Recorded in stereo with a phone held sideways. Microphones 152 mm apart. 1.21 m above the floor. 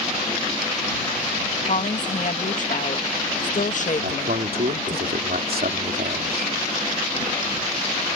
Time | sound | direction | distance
1.7 | a woman speaking | 55° left (ahead or behind) | ?
4.0 | a man speaking | 75° right (ahead or behind) | ?